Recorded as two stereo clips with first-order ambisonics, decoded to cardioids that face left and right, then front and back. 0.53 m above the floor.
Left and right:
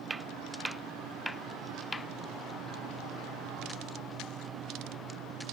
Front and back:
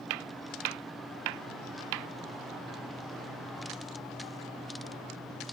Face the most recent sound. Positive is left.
turn(degrees=170)